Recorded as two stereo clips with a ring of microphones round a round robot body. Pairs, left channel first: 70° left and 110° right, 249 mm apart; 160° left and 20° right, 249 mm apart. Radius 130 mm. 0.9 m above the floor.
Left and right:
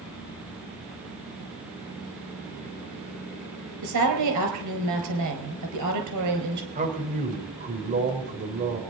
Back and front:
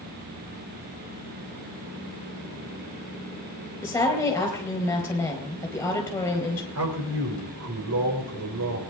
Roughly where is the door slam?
I don't hear a door slam.